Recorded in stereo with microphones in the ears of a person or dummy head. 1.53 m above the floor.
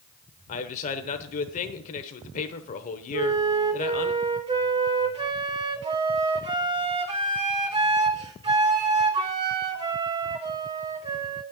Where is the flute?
20° right (ahead or behind), 1.3 m.